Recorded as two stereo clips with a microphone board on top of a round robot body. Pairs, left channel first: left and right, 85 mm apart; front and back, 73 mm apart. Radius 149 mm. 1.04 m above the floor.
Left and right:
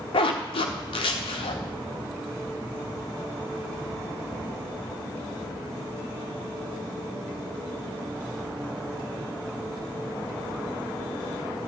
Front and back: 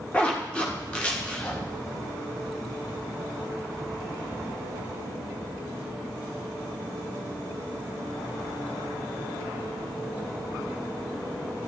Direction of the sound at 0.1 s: 75° left.